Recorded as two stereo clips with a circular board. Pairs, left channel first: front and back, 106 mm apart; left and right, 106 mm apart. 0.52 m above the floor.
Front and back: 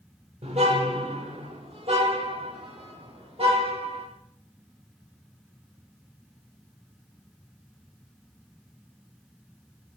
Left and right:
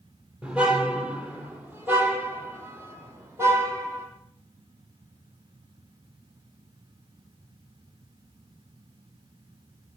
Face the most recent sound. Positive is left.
turn(degrees=-155)